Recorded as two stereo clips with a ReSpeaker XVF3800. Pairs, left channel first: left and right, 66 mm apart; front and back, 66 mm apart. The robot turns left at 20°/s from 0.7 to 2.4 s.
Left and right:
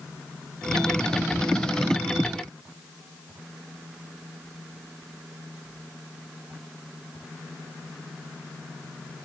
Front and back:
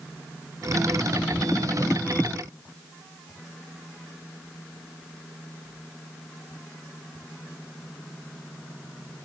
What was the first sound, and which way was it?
Only background noise.